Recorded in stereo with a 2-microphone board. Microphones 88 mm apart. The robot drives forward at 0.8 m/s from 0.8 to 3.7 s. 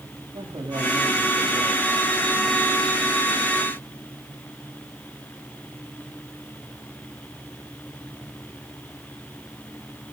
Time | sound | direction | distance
0.3 | a man speaking | 70° right (ahead or behind) | 9.5 m